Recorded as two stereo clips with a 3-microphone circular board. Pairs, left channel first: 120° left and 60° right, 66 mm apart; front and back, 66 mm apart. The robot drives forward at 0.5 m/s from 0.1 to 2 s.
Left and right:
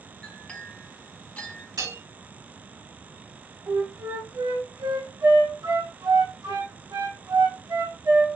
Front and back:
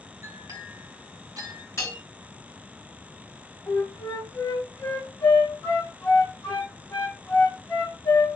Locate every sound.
0.2 s a clink: 165° right, 1.7 m; by 1.7 s 170° right, 2.5 m
1.8 s a bell: 50° right, 4 m; by 2.0 s 55° right, 4 m
3.7 s a flute: 60° right, 3 m